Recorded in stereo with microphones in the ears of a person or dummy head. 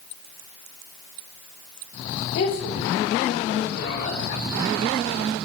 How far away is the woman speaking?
About 3 m.